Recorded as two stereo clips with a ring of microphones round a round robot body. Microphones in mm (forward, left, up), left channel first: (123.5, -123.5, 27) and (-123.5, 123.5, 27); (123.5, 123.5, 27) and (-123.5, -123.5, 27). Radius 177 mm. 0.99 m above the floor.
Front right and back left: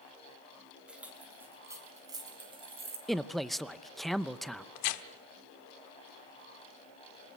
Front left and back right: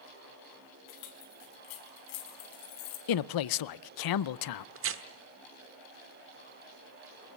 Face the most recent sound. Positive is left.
turn(degrees=-80)